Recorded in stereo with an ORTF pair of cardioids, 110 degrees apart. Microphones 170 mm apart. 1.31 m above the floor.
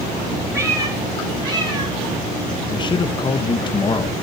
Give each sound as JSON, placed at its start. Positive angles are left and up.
{"t": 0.5, "sound": "a cat meowing", "azimuth_deg": -15, "distance_m": 9.5}
{"t": 2.7, "sound": "a man speaking", "azimuth_deg": 30, "distance_m": 1.0}